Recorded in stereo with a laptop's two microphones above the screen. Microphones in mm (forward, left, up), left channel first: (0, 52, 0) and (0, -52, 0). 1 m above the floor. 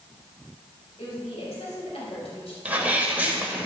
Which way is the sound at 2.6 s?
15° right (ahead or behind).